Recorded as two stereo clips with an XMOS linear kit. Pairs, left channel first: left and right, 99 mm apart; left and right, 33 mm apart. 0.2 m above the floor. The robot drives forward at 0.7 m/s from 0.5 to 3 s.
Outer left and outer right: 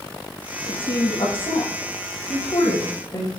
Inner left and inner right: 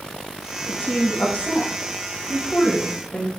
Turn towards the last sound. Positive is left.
turn(degrees=55)  # may be behind; listen again after turning